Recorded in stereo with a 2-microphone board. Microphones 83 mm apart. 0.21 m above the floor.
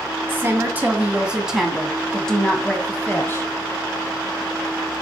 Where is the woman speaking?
30° right (ahead or behind), 1.8 m; by 3.5 s 30° left (ahead or behind), 1.8 m.